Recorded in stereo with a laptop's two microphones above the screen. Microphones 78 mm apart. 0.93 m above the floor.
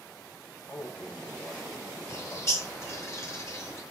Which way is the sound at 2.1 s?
40° left (ahead or behind).